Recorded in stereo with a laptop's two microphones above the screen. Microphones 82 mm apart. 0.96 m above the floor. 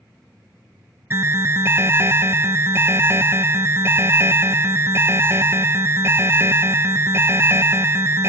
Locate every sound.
1.1 s an alarm: 30° right (ahead or behind), 0.5 m